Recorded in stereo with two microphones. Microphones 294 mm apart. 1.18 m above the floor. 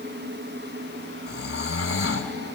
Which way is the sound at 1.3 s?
55° left (ahead or behind).